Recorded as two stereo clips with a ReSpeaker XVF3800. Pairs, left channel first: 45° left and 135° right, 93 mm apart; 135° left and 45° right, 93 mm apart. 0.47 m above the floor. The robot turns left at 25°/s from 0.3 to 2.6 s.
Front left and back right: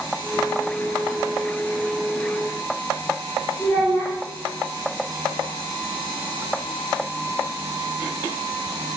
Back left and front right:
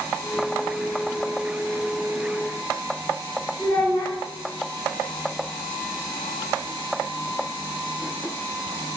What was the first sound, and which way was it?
A child speaking, 95° left.